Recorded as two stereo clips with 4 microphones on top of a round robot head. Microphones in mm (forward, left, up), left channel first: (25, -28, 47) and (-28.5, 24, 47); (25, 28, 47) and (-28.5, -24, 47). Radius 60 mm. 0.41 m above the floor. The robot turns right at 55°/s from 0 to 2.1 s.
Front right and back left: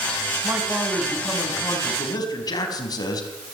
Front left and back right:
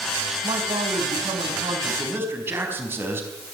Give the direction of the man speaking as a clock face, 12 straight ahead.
6 o'clock.